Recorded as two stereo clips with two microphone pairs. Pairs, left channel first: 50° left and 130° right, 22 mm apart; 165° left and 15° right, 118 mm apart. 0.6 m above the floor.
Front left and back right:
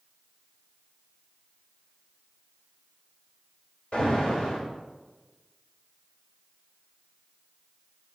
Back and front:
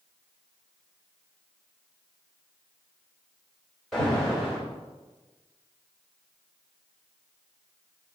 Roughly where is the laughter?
I don't hear laughter.